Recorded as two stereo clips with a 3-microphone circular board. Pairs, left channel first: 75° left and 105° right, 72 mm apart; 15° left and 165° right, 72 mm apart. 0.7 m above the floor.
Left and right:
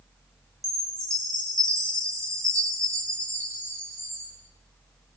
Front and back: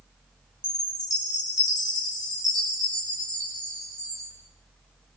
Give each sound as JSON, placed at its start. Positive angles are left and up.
{"t": 0.6, "sound": "a chime", "azimuth_deg": -150, "distance_m": 9.5}